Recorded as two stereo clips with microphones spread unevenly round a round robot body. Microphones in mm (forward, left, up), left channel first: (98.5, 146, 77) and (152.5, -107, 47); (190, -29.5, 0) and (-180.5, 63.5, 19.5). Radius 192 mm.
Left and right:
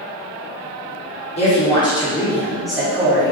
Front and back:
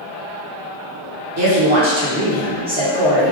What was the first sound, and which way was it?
A woman speaking, 160° left.